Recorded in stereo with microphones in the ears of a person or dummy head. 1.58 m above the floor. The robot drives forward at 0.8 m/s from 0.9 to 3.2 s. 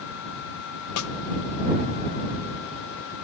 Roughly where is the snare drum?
Left.